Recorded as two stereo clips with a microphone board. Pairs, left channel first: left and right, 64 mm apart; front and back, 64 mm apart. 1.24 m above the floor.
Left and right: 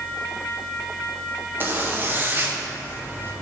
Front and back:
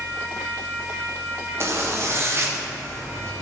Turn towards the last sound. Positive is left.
turn(degrees=-140)